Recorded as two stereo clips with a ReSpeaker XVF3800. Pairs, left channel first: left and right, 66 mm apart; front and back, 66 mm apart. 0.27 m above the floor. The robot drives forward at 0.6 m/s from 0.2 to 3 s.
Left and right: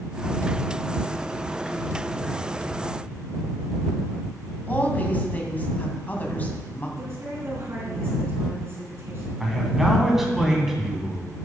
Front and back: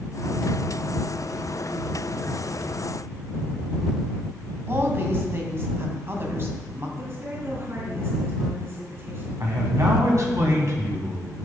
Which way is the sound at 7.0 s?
135° right.